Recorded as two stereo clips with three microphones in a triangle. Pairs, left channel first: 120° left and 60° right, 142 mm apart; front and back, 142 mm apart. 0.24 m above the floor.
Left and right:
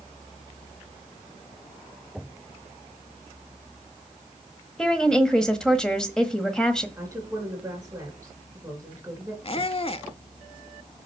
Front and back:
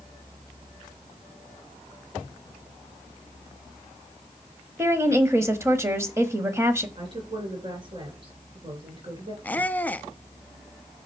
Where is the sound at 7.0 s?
135° right, 3 m.